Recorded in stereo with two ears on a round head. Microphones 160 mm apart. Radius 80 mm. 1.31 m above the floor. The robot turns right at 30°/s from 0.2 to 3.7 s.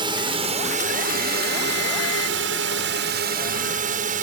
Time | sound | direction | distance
0.0 | a drone | 150° right | ?